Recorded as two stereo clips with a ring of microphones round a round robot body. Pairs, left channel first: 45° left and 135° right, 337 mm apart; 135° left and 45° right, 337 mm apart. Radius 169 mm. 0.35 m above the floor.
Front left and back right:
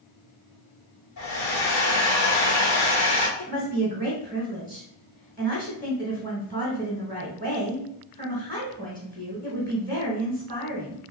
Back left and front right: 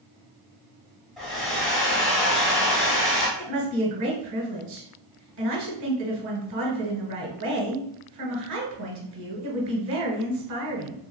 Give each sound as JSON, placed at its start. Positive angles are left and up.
{"t": 1.2, "sound": "a hair dryer", "azimuth_deg": 50, "distance_m": 1.4}
{"t": 3.4, "sound": "a woman speaking", "azimuth_deg": -40, "distance_m": 1.1}